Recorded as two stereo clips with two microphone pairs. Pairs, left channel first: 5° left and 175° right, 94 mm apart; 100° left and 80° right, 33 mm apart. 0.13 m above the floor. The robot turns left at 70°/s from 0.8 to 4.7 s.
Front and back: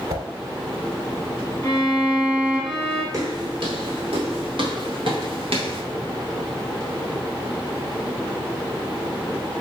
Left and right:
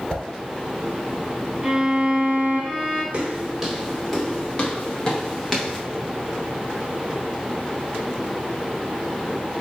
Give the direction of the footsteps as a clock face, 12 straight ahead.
4 o'clock.